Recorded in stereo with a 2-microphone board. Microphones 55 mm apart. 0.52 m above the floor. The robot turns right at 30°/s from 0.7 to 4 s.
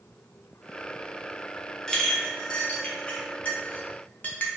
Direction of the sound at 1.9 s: 10° left (ahead or behind).